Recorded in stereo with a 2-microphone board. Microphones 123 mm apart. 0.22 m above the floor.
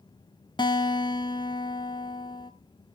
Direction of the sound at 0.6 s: 40° left (ahead or behind).